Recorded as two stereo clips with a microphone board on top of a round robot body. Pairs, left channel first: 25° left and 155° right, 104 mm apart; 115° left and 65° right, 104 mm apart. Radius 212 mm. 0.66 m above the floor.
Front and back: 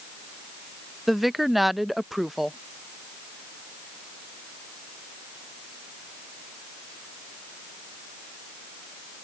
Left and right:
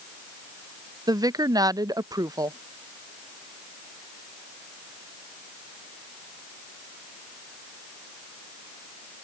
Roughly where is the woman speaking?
Right.